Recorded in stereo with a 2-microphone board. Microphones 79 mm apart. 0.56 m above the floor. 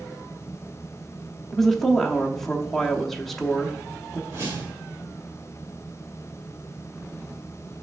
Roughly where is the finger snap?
I don't hear a finger snap.